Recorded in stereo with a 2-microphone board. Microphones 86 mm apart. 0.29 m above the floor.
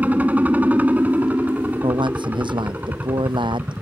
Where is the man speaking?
65° right (ahead or behind).